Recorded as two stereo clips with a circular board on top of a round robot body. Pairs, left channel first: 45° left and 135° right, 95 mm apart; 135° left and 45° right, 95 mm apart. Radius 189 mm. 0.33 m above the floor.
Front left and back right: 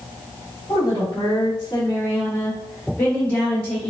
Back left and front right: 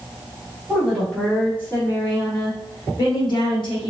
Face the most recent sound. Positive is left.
turn(degrees=120)